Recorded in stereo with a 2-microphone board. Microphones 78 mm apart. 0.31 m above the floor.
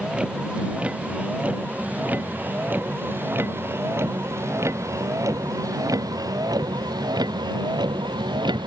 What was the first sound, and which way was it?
A vehicle, 15° right (ahead or behind).